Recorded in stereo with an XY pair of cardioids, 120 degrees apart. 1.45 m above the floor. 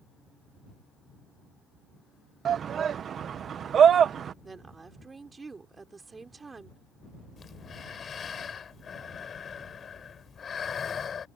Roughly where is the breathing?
Ahead left.